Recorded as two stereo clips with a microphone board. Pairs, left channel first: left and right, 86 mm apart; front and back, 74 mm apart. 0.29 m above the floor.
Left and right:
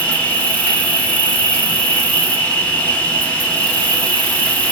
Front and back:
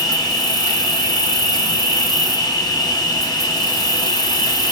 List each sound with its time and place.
0.0 s an insect: 15° left, 0.8 m